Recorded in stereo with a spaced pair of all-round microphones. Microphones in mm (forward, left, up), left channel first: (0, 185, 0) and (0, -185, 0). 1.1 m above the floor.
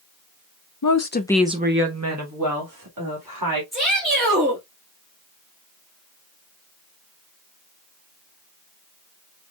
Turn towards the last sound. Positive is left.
turn(degrees=-25)  # may be behind; listen again after turning